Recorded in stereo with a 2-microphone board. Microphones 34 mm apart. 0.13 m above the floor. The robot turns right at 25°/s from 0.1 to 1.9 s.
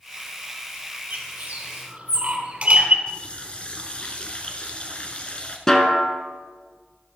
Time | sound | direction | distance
1.1 | a bird | 50° right (ahead or behind) | 2 m
3.1 | a running tap | 30° left (ahead or behind) | 1.3 m
5.7 | a snare drum | 15° left (ahead or behind) | 1.2 m